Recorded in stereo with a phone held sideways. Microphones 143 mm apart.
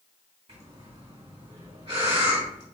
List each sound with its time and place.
0.5 s breathing: 40° right (ahead or behind), 2.5 m